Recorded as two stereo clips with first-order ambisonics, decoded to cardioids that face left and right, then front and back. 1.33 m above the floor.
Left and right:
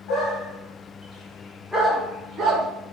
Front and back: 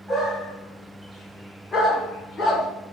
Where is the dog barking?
105° left, 1.7 m; by 2.7 s 50° right, 1.3 m.